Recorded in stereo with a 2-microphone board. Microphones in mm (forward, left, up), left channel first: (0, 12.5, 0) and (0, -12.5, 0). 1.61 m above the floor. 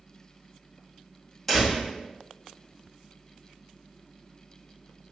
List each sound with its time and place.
1.5 s a door slam: 5° left (ahead or behind), 1.8 m